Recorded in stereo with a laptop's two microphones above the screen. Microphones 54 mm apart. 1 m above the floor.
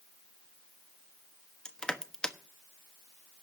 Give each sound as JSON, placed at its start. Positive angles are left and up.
{"t": 1.6, "sound": "crushing", "side_deg": 15, "distance_m": 1.1}